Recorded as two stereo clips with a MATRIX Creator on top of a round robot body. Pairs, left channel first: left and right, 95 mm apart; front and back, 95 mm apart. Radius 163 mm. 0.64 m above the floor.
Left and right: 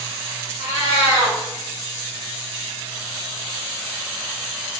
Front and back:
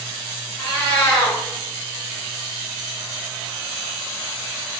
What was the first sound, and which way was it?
A cat meowing, 75° left.